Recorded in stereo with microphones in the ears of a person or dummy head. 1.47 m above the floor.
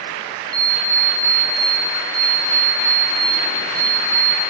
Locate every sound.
0.5 s an alarm clock: 15° right (ahead or behind), 3.5 m